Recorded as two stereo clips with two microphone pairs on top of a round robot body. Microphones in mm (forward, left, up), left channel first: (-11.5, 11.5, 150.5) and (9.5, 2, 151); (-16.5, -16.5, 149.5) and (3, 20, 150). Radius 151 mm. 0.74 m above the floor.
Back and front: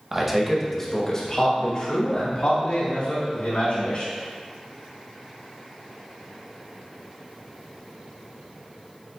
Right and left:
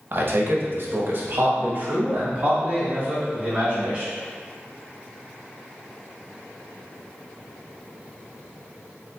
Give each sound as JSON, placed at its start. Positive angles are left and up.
{"t": 0.1, "sound": "a man speaking", "azimuth_deg": 45, "distance_m": 1.1}